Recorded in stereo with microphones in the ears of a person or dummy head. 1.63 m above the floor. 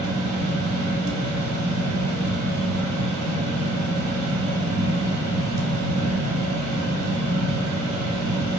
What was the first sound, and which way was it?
A fan, 90° right.